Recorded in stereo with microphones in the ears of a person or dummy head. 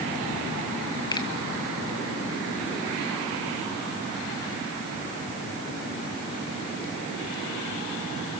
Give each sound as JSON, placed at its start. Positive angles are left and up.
{"t": 1.1, "sound": "a finger snap", "side_deg": 30, "distance_m": 1.3}